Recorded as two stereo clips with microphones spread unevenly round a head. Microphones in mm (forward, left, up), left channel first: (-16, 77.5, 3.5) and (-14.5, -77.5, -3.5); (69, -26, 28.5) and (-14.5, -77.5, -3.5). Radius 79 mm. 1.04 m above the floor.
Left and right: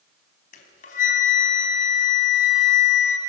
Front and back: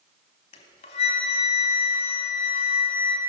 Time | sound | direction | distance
0.5 | a flute | 50° left | 3 m